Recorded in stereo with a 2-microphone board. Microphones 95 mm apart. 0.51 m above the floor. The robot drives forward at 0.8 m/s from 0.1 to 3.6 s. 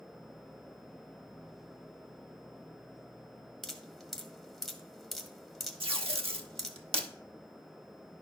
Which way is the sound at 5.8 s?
85° right.